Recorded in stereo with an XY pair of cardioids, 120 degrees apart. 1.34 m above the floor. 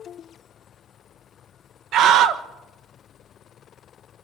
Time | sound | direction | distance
1.9 | a scream | 65° right | 1.6 m